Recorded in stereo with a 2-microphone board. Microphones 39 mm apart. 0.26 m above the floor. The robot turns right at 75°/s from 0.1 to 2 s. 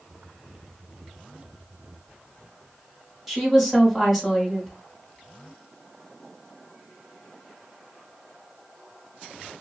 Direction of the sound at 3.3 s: 5° right (ahead or behind).